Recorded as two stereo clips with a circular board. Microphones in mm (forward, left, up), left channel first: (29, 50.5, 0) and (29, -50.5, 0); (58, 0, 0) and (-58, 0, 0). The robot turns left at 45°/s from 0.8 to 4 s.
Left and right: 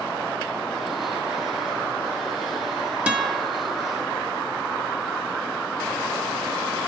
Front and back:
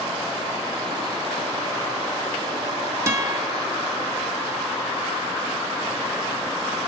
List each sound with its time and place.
3.1 s a guitar: 150° right, 0.7 m; by 3.5 s 170° right, 0.7 m